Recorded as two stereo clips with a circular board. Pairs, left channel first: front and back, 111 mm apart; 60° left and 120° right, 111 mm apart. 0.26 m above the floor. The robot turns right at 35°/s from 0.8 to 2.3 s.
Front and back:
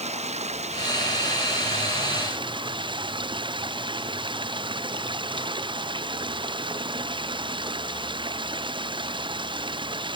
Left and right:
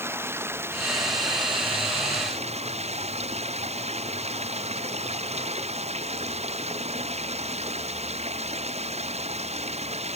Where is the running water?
170° left; by 10.2 s 135° right.